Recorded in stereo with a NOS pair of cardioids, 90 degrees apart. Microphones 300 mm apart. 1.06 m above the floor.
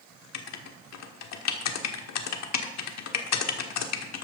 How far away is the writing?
About 1.4 m.